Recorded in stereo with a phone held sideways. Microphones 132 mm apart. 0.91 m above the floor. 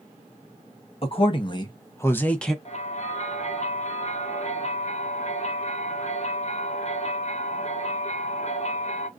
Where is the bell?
55° left (ahead or behind), 0.8 m.